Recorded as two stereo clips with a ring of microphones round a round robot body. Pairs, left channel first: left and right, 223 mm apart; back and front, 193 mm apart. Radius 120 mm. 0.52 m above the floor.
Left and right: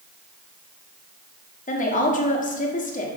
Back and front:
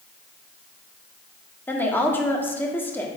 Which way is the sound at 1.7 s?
105° left.